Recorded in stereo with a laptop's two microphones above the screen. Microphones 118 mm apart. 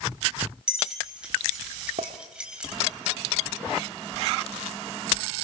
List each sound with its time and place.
0.7 s keys jangling: 5° right (ahead or behind), 3.5 m
2.0 s a clink: 75° right (ahead or behind), 1.2 m